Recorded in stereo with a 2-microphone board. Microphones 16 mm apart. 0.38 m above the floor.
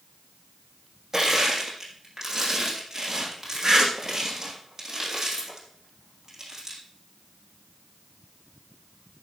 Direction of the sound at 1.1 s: 25° right (ahead or behind).